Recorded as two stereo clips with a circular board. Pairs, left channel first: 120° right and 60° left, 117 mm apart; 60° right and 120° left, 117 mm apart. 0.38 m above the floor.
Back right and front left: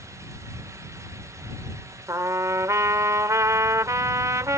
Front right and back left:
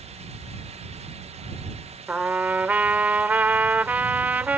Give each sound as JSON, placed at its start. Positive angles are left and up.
{"t": 2.1, "sound": "a trumpet", "azimuth_deg": 60}